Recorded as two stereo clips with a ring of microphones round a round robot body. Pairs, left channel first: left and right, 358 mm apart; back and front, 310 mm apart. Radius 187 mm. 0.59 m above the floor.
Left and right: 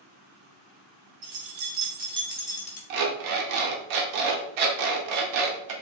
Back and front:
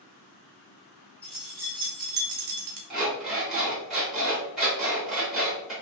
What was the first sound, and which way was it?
Keys jangling, 95° right.